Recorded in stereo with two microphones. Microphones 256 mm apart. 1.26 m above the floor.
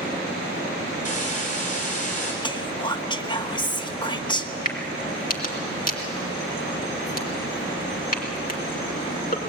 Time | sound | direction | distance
1.1 | a hiss | 30° left (ahead or behind) | 5 m
2.4 | whispering | 15° left (ahead or behind) | 1.3 m
4.7 | a crack | 35° left (ahead or behind) | 2.5 m